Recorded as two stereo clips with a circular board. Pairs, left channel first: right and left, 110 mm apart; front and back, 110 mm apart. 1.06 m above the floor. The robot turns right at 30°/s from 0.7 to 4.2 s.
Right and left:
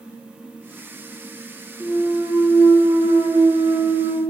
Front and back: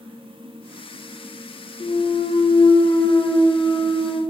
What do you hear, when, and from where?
1.8 s a clunk: 10° left, 0.5 m; by 4.2 s 85° left, 0.5 m